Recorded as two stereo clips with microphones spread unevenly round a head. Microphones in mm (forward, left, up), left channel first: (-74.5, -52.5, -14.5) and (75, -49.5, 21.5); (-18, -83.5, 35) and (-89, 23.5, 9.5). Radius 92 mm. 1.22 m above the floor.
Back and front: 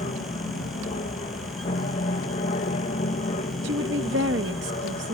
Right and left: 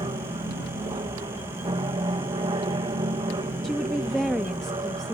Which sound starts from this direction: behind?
An aircraft, at 0.0 s.